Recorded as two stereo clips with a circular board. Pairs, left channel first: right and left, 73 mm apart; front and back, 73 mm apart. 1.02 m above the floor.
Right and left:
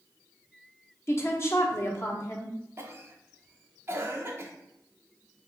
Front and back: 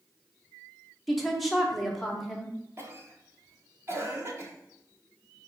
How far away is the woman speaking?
About 0.9 m.